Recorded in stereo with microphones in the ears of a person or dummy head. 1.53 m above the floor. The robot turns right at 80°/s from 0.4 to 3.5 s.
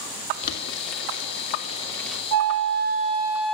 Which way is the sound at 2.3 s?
95° right.